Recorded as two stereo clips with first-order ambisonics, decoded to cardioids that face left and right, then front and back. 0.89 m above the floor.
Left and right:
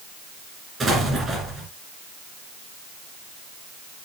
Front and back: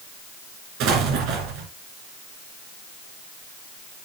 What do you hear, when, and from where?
0.8 s an explosion: 160° right, 2.5 m